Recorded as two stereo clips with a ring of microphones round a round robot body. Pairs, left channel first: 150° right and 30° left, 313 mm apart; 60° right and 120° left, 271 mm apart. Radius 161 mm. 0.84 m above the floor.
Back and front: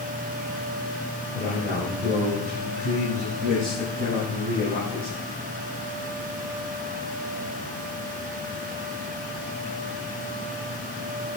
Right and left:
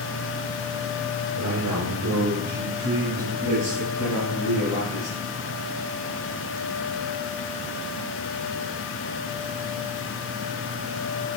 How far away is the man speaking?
About 5 m.